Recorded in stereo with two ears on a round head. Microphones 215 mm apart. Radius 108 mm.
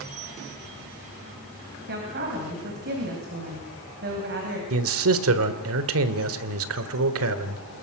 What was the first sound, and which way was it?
A woman speaking, 45° right (ahead or behind).